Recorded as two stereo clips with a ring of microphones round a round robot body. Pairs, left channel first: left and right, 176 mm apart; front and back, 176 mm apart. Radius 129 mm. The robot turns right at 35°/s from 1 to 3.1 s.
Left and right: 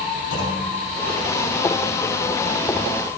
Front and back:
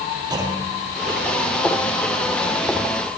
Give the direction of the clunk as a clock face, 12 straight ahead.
8 o'clock.